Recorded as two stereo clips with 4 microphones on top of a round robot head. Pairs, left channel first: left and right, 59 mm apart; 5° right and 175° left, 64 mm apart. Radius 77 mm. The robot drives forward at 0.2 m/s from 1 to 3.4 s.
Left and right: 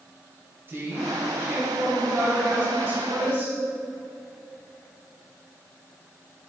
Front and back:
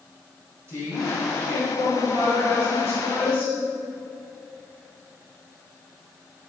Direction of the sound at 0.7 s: 140° right.